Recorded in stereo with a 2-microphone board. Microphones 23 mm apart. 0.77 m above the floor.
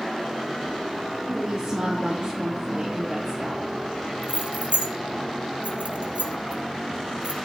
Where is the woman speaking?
45° right (ahead or behind), 1.0 m.